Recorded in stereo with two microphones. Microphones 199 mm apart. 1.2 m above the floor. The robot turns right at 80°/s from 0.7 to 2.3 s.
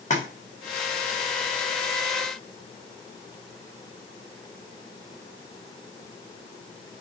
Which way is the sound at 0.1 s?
35° left (ahead or behind).